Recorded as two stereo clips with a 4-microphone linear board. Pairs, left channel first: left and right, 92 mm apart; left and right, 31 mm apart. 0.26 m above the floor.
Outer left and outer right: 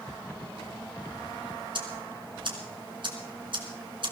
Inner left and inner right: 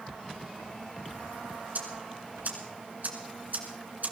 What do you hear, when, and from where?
1.8 s ticking: 60° right (ahead or behind), 2.5 m